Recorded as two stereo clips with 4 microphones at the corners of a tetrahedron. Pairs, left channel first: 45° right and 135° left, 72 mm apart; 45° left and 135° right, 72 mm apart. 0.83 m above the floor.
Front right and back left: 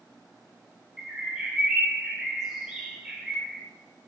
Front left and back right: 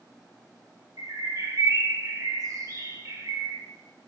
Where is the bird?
145° right, 1.5 m.